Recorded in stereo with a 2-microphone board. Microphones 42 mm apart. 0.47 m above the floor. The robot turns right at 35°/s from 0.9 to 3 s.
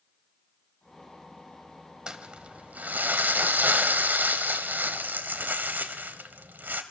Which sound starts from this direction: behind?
Crumpling, at 2.1 s.